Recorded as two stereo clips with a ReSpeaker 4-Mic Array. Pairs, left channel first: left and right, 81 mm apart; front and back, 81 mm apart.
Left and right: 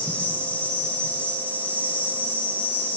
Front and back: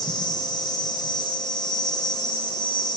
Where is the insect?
20° left, 6 m.